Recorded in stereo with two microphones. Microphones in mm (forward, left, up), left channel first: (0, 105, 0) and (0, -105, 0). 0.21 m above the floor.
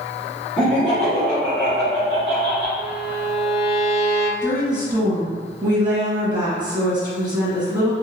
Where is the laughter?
35° right (ahead or behind), 2.0 m; by 2.7 s 40° right (ahead or behind), 1.7 m.